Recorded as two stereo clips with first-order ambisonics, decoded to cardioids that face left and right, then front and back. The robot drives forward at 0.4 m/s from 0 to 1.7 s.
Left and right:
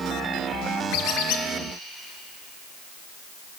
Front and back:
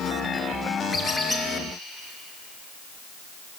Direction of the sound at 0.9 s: 75° left.